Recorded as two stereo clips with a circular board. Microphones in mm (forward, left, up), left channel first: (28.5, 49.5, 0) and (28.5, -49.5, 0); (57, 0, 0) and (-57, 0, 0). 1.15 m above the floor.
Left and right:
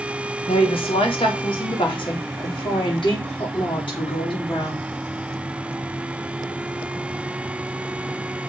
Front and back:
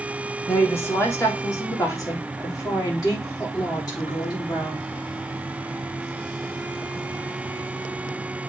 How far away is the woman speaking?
About 1.8 m.